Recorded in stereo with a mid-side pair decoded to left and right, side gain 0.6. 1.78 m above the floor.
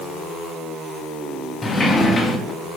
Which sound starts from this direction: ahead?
A sliding door, at 1.6 s.